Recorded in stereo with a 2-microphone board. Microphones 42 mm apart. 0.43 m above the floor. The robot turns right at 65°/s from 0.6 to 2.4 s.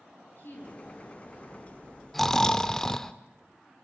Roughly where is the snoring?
Centre.